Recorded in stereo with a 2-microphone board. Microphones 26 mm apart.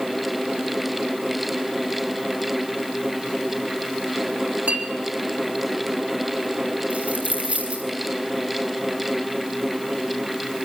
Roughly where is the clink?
Right.